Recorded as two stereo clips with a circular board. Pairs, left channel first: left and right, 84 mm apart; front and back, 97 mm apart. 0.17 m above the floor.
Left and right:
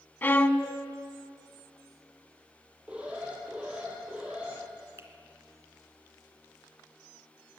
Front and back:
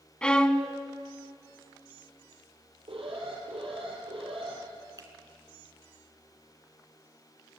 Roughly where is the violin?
Left.